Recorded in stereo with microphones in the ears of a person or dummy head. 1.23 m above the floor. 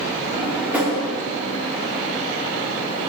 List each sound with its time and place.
0.3 s a drawer: 10° right (ahead or behind), 1.3 m